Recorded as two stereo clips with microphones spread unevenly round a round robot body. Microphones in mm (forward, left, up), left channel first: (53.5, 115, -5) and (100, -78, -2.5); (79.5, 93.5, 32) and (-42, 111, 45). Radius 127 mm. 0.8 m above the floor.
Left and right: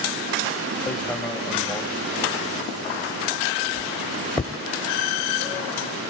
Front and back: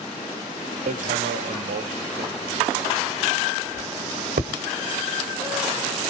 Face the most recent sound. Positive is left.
turn(degrees=-170)